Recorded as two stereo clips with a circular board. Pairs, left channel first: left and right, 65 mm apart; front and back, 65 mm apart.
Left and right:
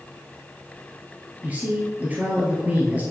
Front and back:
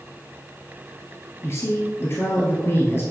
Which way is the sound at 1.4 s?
30° right.